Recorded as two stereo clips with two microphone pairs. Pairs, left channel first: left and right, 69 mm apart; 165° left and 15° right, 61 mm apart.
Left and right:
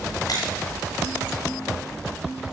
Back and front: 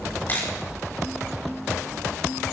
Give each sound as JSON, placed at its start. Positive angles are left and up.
{"t": 0.3, "sound": "a camera shutter", "azimuth_deg": 110, "distance_m": 5.0}